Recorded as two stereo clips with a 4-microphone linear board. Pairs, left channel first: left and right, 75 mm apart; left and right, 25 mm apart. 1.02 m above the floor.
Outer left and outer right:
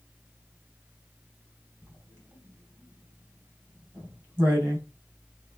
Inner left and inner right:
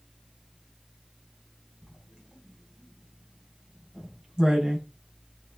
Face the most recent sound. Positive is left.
turn(degrees=-30)  # may be behind; listen again after turning